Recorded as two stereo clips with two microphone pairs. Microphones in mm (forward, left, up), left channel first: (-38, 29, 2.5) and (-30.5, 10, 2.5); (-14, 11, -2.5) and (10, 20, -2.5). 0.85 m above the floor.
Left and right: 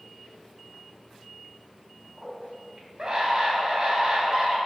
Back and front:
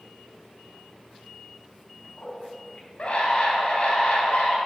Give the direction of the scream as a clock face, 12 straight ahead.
5 o'clock.